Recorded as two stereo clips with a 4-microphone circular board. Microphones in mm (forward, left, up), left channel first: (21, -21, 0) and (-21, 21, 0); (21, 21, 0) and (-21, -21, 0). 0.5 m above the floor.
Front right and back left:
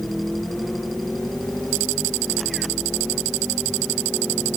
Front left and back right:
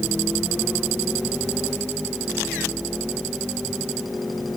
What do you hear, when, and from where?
Only background noise.